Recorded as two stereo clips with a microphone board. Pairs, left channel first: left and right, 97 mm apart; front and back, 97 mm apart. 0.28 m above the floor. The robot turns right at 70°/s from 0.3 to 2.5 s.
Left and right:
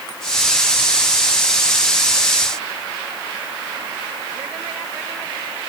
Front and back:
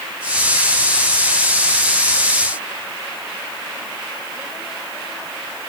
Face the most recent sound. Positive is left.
No sound to turn to.